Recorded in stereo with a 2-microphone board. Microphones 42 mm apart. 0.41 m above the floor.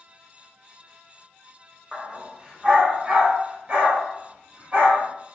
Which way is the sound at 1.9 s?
5° right (ahead or behind).